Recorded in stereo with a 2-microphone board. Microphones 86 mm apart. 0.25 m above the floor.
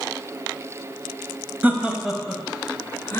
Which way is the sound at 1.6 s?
20° right (ahead or behind).